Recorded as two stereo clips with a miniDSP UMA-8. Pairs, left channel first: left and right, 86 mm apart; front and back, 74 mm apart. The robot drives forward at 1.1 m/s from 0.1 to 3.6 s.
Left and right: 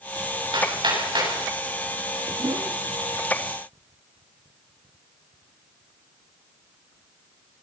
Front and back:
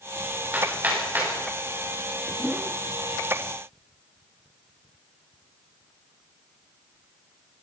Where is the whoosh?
100° right, 1.0 m; by 2.8 s 120° right, 1.1 m.